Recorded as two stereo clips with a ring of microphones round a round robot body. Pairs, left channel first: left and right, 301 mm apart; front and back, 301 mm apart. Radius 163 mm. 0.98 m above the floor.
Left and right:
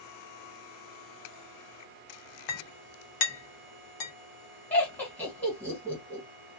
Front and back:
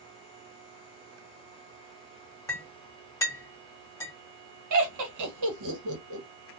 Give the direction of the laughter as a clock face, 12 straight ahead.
6 o'clock.